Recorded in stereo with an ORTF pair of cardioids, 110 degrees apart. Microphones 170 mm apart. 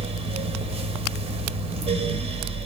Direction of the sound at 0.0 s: 35° right.